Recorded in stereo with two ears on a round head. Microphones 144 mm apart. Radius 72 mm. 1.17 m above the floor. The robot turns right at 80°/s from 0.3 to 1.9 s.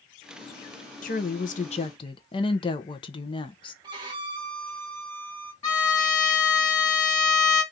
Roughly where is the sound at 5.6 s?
Left.